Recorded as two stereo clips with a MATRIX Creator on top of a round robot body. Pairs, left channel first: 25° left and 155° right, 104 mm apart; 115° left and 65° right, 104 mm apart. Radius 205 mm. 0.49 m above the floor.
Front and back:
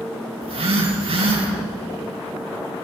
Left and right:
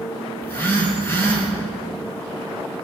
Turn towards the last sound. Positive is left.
turn(degrees=180)